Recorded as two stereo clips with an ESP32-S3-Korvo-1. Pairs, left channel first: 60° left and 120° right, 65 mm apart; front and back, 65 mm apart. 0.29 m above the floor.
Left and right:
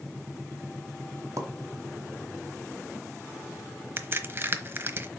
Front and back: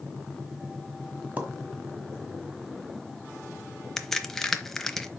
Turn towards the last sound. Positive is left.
turn(degrees=-85)